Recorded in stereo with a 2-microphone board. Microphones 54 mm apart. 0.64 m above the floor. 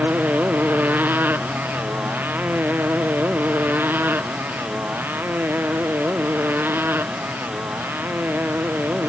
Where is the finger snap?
I don't hear a finger snap.